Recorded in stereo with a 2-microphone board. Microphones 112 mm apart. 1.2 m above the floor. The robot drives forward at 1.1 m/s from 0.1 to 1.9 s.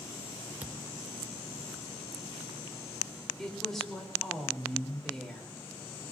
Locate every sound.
0.6 s a thud: 15° right (ahead or behind), 0.7 m
3.4 s a woman speaking: 5° left (ahead or behind), 4 m